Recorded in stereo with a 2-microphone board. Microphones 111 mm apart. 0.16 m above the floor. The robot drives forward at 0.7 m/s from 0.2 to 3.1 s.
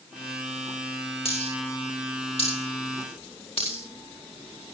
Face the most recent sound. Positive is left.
turn(degrees=60)  # may be behind; listen again after turning